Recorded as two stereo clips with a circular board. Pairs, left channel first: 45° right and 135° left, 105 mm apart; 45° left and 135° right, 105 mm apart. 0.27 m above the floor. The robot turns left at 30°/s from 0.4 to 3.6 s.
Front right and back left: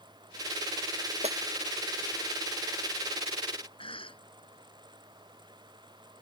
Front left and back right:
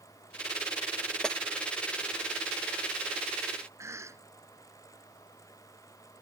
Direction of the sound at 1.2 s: 130° left.